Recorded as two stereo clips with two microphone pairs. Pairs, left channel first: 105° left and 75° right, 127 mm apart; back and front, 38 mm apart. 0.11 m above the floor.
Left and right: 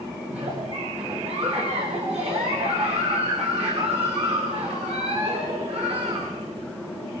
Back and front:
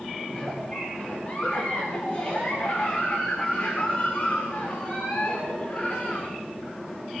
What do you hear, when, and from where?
0.3 s a giggle: 110° right, 9.5 m